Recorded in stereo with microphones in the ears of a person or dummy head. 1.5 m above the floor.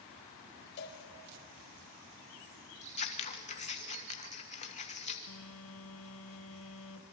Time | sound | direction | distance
0.8 | a cowbell | 60° left (ahead or behind) | 3 m
2.8 | scissors | 35° left (ahead or behind) | 1.5 m
5.3 | a phone buzzing | 80° left | 1.6 m